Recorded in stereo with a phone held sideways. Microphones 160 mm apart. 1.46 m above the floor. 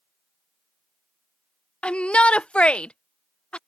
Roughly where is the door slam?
I don't hear a door slam.